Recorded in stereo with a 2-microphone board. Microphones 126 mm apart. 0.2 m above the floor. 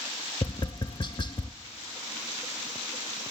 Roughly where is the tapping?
Left.